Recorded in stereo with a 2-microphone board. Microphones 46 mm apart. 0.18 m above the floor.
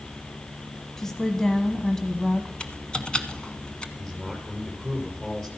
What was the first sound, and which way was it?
A woman speaking, 10° left (ahead or behind).